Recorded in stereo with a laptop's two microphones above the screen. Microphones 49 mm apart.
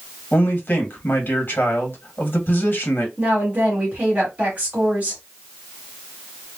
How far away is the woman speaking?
About 1.7 m.